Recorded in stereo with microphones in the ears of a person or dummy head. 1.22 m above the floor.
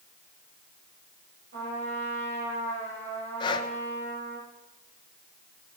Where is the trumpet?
60° right (ahead or behind), 10 m.